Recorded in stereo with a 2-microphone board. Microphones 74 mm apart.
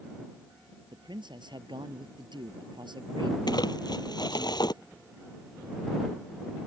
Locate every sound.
0.9 s a man speaking: 85° right
3.5 s crumpling: 65° left (ahead or behind)